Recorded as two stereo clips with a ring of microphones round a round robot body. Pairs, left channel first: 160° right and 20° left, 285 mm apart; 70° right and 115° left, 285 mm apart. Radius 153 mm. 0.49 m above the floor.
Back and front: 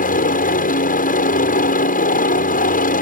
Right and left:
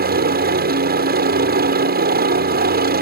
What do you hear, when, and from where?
0.0 s a helicopter: 155° left